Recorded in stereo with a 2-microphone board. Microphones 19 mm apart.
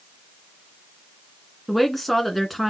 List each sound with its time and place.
1.7 s a woman speaking: 10° left (ahead or behind), 2.5 m